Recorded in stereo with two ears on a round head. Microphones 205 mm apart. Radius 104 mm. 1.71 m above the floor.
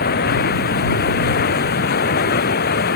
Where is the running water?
40° left (ahead or behind).